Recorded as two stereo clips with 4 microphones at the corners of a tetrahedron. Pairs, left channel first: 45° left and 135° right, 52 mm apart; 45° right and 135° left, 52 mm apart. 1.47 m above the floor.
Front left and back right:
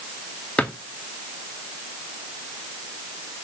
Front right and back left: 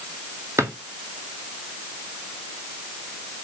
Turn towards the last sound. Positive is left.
turn(degrees=110)